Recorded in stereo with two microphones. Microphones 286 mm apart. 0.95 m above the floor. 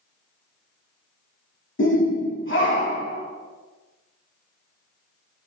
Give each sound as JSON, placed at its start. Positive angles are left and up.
{"t": 1.8, "sound": "a shout", "side_deg": 40, "distance_m": 0.8}